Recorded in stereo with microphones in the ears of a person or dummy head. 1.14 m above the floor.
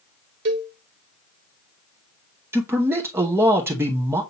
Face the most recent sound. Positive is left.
turn(degrees=-10)  # may be behind; listen again after turning